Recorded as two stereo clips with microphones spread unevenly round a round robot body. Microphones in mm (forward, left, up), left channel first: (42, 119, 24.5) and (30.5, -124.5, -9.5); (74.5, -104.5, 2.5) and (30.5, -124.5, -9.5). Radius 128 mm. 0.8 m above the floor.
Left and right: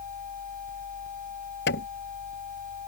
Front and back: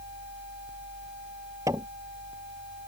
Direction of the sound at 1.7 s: 140° left.